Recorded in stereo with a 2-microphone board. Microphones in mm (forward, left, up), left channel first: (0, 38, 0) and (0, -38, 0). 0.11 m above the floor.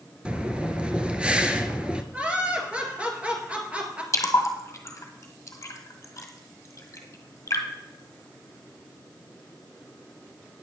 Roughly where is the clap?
No clap in this recording.